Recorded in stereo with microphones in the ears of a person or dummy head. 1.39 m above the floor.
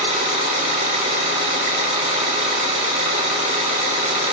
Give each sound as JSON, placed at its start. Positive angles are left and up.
{"t": 0.0, "sound": "an engine running", "side_deg": -45, "distance_m": 3.0}